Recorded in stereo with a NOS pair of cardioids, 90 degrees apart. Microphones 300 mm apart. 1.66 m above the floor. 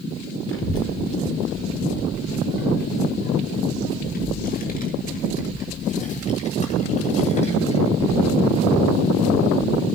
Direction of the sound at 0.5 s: 45° left.